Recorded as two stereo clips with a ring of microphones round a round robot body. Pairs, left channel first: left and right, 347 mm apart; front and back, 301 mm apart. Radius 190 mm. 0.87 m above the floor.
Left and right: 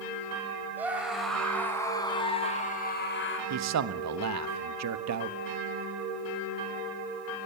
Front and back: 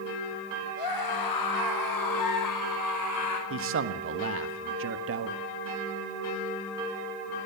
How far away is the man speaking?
About 1.5 m.